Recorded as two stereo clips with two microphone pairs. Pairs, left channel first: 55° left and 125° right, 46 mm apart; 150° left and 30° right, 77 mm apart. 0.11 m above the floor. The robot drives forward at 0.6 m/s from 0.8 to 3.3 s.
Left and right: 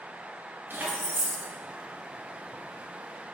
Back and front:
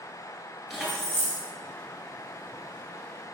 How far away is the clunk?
No clunk in this recording.